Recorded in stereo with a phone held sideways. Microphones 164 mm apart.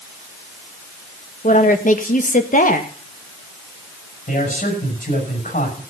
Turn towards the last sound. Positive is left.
turn(degrees=55)  # may be behind; listen again after turning